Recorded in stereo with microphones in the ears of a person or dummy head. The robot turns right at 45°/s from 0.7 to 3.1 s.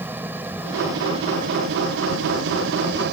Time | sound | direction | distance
0.0 | an engine running | 170° right | ?